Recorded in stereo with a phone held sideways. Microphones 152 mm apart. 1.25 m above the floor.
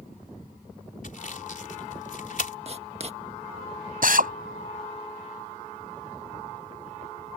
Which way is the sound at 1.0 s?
60° left (ahead or behind).